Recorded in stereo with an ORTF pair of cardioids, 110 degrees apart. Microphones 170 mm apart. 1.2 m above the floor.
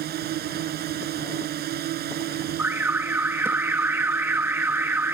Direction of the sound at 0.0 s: 65° right.